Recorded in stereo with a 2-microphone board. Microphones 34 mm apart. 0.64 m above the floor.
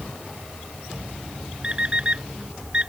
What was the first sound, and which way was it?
An alarm clock, 30° right (ahead or behind).